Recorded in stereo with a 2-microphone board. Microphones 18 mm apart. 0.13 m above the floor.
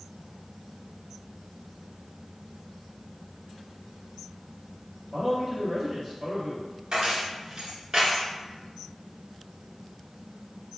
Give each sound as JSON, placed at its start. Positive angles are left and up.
{"t": 5.1, "sound": "a man speaking", "side_deg": -10, "distance_m": 2.0}
{"t": 6.9, "sound": "keys jangling", "side_deg": -35, "distance_m": 1.4}